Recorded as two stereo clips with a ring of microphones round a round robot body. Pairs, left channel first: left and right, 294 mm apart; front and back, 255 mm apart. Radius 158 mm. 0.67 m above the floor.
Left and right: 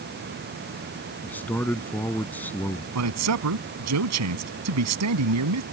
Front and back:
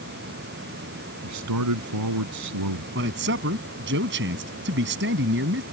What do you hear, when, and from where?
1.2 s a man speaking: 175° left
3.0 s a man speaking: 125° right